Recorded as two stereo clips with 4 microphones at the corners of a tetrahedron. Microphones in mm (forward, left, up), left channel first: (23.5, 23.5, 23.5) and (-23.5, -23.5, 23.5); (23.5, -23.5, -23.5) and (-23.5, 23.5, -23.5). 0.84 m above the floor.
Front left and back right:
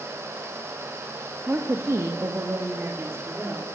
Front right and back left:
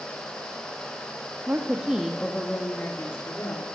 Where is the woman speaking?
Straight behind, 1.5 m; by 3.6 s 80° right, 3 m.